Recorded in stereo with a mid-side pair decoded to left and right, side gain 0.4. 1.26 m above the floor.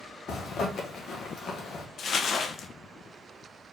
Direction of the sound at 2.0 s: 60° left.